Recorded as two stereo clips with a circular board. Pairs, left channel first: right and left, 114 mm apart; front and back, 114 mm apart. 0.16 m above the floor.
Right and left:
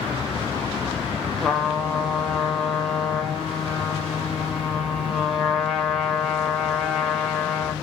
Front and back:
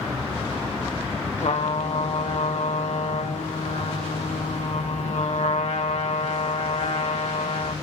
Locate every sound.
1.4 s a trumpet: straight ahead, 2.5 m